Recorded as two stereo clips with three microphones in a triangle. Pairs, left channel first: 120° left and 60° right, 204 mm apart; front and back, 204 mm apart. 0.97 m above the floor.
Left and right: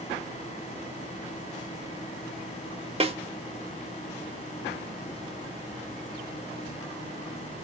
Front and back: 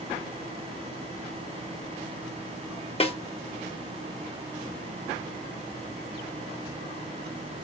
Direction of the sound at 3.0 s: 30° right.